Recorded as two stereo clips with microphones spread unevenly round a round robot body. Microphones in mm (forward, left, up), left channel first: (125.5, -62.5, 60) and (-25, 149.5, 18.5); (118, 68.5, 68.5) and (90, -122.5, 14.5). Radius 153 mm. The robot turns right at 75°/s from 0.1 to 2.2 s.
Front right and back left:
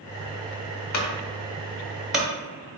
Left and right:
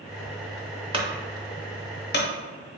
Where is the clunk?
50° right, 1.2 m; by 2.8 s 45° left, 1.2 m.